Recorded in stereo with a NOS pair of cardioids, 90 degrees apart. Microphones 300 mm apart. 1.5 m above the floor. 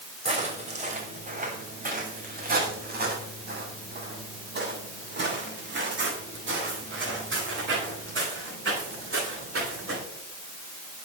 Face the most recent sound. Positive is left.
turn(degrees=-45)